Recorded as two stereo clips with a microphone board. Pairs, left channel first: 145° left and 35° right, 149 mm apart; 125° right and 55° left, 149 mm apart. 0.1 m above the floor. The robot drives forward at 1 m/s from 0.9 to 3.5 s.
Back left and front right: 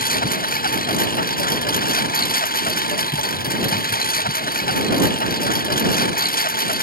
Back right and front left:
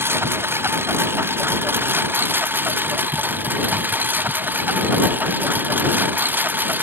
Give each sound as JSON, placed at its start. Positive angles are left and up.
{"t": 0.0, "sound": "a lawn mower", "azimuth_deg": 130}